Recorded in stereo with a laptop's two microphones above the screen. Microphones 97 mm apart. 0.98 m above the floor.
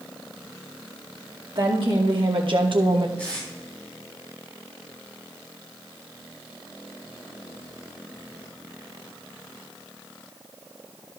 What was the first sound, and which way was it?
A woman speaking, 60° right (ahead or behind).